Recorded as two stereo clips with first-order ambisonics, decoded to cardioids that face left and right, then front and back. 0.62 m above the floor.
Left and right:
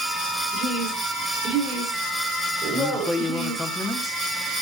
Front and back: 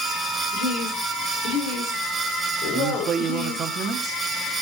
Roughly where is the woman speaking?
Ahead right.